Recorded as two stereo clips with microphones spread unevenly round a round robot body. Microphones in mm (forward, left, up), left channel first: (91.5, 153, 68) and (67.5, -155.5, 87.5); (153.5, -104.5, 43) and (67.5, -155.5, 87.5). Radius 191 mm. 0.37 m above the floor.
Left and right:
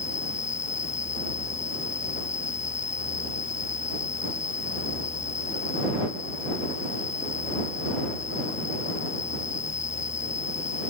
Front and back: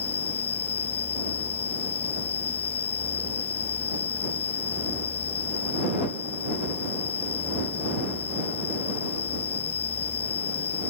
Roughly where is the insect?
Ahead.